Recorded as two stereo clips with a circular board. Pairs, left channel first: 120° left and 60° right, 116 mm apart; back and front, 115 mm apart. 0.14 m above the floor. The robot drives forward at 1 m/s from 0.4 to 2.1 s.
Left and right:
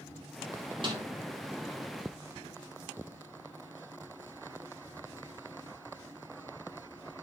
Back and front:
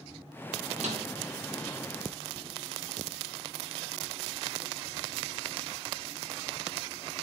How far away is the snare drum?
About 4 m.